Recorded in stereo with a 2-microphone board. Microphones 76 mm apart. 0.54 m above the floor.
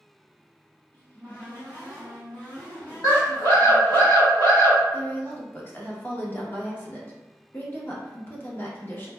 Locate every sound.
0.9 s a cupboard door: 25° left (ahead or behind), 1.2 m
3.0 s a scream: 55° left (ahead or behind), 1.8 m
4.9 s a woman speaking: 30° left (ahead or behind), 0.7 m